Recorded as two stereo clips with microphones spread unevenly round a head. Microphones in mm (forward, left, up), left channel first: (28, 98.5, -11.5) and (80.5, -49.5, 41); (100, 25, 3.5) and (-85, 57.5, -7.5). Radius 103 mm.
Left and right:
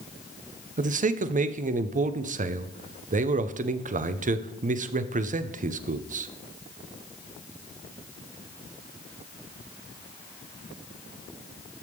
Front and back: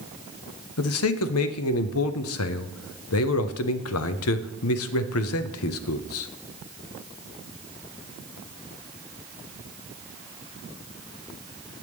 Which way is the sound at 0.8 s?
25° right.